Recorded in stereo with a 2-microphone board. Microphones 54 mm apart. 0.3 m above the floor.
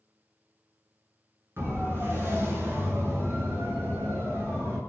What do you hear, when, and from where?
1.6 s a siren: 45° right (ahead or behind), 5.5 m